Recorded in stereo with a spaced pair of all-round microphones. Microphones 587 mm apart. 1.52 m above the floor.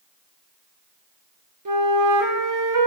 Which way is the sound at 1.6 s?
35° right (ahead or behind).